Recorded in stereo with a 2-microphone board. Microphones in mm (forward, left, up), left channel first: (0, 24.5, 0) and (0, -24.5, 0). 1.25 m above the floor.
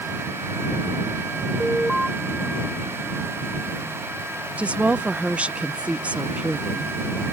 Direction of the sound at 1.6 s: 5° right (ahead or behind).